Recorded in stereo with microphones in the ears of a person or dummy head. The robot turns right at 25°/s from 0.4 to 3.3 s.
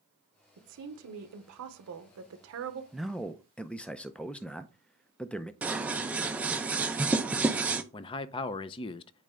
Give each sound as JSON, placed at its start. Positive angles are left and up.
{"t": 0.6, "sound": "a woman speaking", "azimuth_deg": -120, "distance_m": 1.1}
{"t": 2.9, "sound": "a man speaking", "side_deg": -5, "distance_m": 0.5}
{"t": 5.6, "sound": "scissors", "side_deg": -5, "distance_m": 0.6}
{"t": 7.9, "sound": "a man speaking", "side_deg": 30, "distance_m": 0.5}